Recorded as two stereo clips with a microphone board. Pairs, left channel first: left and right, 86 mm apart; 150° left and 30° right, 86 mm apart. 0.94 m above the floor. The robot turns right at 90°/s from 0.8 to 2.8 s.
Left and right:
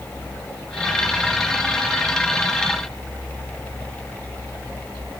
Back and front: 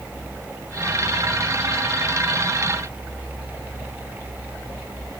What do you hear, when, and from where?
Only background noise.